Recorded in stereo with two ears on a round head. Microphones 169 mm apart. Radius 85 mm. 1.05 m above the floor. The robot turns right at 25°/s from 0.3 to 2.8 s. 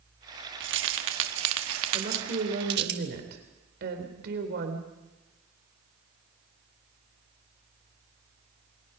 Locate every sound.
0.6 s keys jangling: 70° right (ahead or behind), 1.4 m; by 2.9 s 55° right (ahead or behind), 1.4 m
1.9 s a woman speaking: 40° right (ahead or behind), 3.5 m; by 4.9 s 60° right (ahead or behind), 3.5 m